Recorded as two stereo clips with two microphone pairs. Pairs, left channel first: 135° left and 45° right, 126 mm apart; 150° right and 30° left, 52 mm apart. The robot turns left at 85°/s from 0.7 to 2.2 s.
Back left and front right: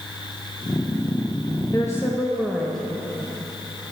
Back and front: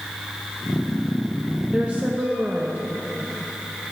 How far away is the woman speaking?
About 0.6 m.